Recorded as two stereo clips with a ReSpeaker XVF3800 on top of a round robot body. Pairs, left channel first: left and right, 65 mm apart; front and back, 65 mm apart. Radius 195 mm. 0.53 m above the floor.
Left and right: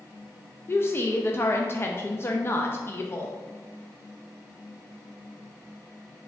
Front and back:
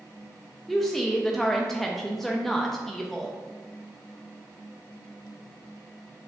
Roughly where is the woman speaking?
Left.